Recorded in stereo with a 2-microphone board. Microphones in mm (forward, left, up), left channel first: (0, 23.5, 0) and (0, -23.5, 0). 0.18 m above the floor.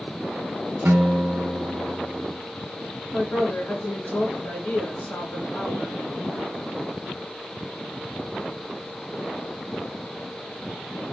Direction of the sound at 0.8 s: 55° right (ahead or behind).